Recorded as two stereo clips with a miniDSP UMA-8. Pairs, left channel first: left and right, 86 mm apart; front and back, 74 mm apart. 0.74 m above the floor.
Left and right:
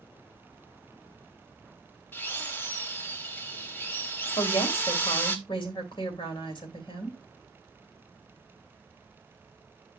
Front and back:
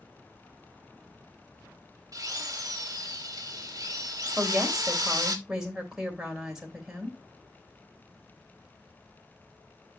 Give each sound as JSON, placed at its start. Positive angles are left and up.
{"t": 2.1, "sound": "a drill", "azimuth_deg": 155, "distance_m": 1.2}
{"t": 4.4, "sound": "a woman speaking", "azimuth_deg": 100, "distance_m": 2.5}